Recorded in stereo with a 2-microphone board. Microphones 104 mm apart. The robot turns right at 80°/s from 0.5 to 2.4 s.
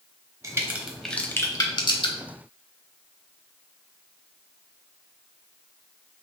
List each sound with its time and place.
0.4 s a crack: 30° right (ahead or behind), 0.7 m; by 2.2 s 50° left (ahead or behind), 0.7 m